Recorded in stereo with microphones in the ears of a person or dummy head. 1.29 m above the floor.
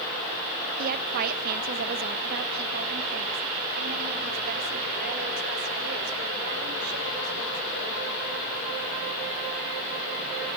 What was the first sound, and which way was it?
A woman speaking, 45° right (ahead or behind).